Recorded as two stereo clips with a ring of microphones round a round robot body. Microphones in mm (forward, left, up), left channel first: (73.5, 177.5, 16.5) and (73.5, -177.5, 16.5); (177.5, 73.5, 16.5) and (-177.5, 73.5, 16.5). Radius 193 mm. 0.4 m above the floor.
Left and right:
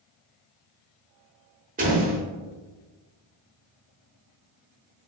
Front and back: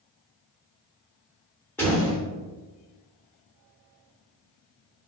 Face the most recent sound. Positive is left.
turn(degrees=-75)